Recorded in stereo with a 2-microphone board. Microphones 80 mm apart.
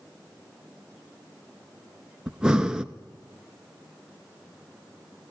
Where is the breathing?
10° right (ahead or behind), 0.7 m.